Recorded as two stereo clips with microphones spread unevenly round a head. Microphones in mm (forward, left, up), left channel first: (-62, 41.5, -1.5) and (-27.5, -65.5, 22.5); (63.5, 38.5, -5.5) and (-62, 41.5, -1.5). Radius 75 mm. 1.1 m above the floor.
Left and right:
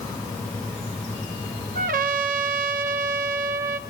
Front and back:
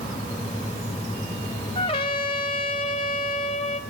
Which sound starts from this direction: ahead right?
A trumpet, at 1.8 s.